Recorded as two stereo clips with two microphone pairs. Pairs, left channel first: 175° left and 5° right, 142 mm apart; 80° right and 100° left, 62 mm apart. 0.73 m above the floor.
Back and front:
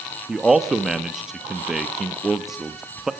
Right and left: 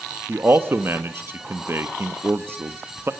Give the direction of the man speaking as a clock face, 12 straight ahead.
9 o'clock.